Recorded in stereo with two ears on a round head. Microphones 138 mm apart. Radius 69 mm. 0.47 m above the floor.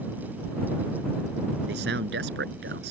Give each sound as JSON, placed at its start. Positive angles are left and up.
{"t": 1.7, "sound": "a man speaking", "side_deg": -75}